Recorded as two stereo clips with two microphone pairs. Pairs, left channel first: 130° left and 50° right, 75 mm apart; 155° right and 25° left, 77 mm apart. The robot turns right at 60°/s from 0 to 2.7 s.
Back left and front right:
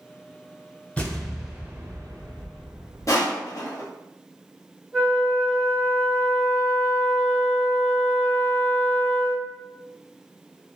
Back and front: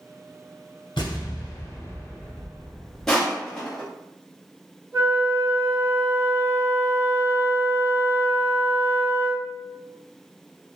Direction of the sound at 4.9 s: 30° left.